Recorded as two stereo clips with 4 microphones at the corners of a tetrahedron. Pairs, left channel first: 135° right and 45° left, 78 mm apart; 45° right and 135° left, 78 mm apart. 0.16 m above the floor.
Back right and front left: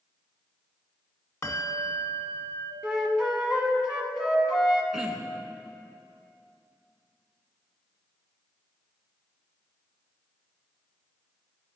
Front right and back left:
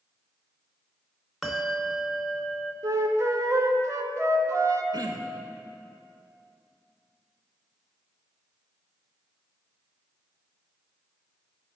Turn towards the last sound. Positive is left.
turn(degrees=130)